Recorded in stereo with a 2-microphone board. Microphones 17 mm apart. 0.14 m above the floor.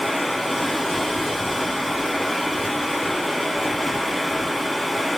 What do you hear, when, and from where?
0.0 s running water: centre (ahead or behind), 2 m